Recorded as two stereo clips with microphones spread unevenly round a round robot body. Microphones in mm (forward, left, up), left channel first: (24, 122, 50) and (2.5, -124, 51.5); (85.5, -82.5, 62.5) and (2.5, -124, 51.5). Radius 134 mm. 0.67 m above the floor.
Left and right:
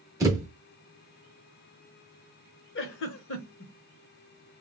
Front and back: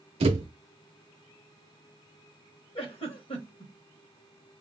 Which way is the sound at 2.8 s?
45° left.